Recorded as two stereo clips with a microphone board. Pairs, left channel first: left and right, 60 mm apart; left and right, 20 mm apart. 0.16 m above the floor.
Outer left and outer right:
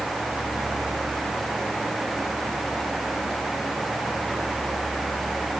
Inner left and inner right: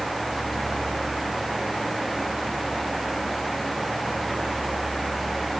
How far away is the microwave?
No microwave in this recording.